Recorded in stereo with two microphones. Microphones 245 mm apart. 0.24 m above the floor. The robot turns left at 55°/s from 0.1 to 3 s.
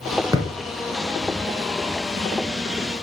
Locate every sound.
0.3 s a thud: 15° right (ahead or behind), 1.0 m; by 0.5 s 20° right (ahead or behind), 1.0 m